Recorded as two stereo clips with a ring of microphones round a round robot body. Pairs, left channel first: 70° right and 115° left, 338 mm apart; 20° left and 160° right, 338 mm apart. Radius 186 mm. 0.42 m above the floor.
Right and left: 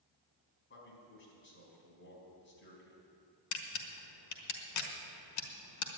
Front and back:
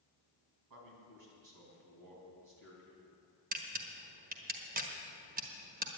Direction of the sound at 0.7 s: 125° right.